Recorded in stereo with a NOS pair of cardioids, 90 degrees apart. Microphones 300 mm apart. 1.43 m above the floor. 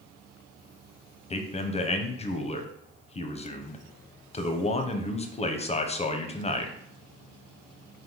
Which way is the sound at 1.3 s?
20° left.